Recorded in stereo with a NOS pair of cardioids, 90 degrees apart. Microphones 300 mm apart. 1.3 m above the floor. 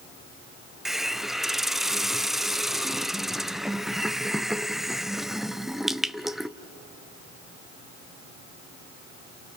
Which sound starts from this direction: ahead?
A hiss, at 0.8 s.